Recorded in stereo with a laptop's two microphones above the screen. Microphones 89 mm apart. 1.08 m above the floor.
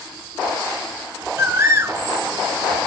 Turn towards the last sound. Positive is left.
turn(degrees=-25)  # may be behind; listen again after turning